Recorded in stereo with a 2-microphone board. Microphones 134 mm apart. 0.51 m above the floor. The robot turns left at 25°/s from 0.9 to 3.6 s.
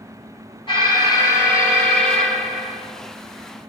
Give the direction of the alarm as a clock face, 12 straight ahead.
11 o'clock.